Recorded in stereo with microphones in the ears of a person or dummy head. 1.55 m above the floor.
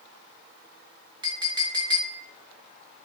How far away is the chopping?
I don't hear chopping.